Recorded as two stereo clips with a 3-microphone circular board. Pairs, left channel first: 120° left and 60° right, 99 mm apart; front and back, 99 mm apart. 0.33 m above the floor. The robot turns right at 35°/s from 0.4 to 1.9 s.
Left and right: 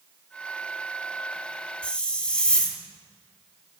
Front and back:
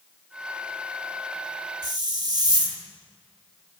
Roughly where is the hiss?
Behind.